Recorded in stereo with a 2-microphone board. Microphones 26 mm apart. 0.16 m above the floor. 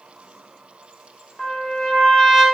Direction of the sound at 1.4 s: 20° left (ahead or behind).